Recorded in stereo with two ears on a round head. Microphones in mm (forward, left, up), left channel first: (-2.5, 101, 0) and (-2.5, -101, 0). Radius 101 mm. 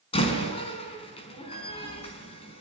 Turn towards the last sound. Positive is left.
turn(degrees=25)  # may be behind; listen again after turning